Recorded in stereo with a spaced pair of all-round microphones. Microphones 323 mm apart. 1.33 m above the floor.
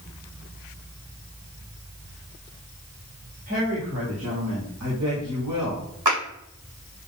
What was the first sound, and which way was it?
A woman speaking, 40° right (ahead or behind).